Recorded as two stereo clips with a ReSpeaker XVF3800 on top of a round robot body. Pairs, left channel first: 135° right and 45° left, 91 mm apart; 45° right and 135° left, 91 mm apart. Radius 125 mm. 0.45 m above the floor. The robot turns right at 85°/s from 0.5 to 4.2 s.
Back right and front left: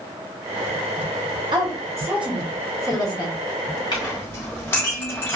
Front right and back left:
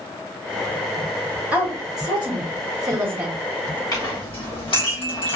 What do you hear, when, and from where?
1.5 s a woman speaking: 60° left, 1.8 m; by 3.8 s 105° right, 1.8 m
3.9 s a clink: 95° right, 2 m; by 5.4 s 70° right, 2 m